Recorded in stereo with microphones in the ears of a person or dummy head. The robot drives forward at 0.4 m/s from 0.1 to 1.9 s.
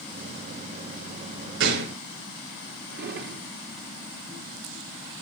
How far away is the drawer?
About 1.9 m.